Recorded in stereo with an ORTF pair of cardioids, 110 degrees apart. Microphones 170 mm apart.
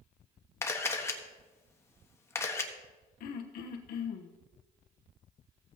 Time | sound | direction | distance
0.6 | a camera shutter | 15° left | 1.2 m
3.2 | throat clearing | 65° left | 1.0 m